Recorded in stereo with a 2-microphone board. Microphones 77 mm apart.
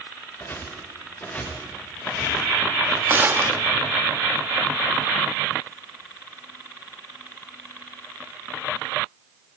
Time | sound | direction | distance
0.4 | footsteps | 25° left (ahead or behind) | 5.5 m
3.1 | a gunshot | 25° right (ahead or behind) | 0.7 m